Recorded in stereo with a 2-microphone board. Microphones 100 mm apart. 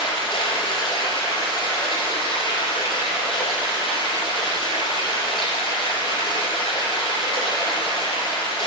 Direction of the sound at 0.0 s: 50° left (ahead or behind).